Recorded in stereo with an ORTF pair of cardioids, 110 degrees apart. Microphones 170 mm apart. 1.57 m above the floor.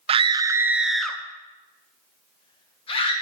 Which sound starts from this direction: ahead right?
A scream, at 0.1 s.